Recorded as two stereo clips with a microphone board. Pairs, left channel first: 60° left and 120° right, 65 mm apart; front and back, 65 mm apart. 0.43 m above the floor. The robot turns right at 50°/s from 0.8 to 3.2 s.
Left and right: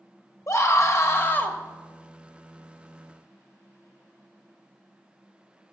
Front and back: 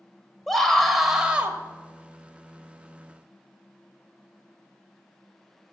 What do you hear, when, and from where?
0.5 s a scream: 85° left, 1.7 m; by 1.6 s 125° left, 1.7 m